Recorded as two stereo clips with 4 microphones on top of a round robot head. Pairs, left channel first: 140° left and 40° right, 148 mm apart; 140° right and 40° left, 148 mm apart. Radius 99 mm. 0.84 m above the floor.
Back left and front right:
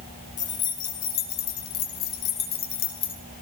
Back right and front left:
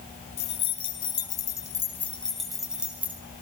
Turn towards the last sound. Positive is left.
turn(degrees=120)